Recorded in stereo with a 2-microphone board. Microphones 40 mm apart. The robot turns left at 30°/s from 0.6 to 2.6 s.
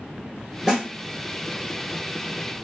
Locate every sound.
0.7 s a snare drum: 15° right (ahead or behind), 1.0 m; by 0.9 s 20° right (ahead or behind), 1.0 m